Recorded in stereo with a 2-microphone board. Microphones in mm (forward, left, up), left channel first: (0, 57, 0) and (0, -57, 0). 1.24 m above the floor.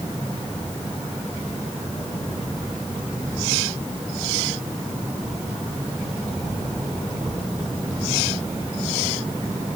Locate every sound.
Only background noise.